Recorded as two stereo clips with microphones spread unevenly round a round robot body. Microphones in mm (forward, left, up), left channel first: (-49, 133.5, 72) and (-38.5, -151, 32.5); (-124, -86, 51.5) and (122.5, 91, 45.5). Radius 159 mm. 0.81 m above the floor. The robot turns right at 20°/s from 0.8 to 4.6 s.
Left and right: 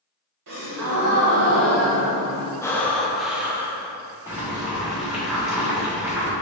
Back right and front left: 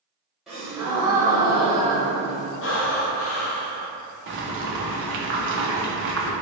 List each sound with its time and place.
0.5 s a gasp: 55° right, 0.9 m; by 2.5 s 20° right, 0.9 m
2.6 s breathing: straight behind, 0.5 m; by 3.9 s 155° right, 0.5 m
4.3 s boiling: 10° right, 0.6 m; by 6.3 s 5° right, 0.6 m